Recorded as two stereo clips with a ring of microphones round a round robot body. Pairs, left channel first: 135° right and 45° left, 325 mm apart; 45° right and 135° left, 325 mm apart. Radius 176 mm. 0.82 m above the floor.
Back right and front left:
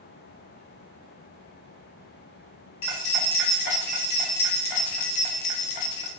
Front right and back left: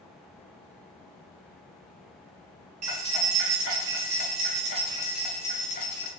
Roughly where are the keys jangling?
Behind.